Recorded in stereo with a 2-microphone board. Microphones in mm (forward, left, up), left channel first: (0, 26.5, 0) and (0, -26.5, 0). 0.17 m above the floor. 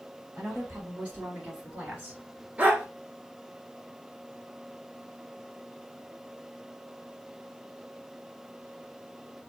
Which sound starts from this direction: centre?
A woman speaking, at 0.4 s.